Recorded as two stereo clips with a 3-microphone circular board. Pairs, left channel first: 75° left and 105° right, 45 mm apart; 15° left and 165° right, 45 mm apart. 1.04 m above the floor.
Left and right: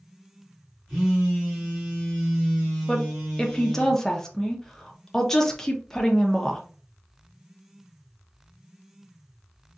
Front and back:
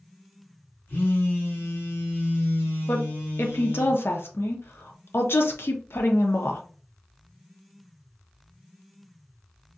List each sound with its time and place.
0.9 s a phone buzzing: 30° right, 2 m
2.9 s a woman speaking: 5° right, 0.7 m